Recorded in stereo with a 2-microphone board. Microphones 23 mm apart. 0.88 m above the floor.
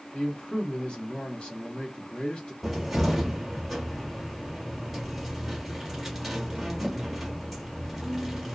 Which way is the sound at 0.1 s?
40° left (ahead or behind).